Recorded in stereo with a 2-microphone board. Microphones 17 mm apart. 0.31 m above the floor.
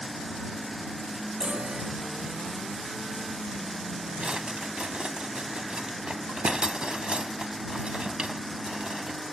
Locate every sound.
1.4 s a chime: 70° right (ahead or behind)
4.2 s a drawer: 70° right (ahead or behind)